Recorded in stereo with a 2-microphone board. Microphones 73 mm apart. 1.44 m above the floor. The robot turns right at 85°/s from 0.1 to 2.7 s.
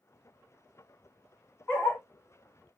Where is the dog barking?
25° left (ahead or behind), 1.0 m; by 2.0 s 40° left (ahead or behind), 1.0 m.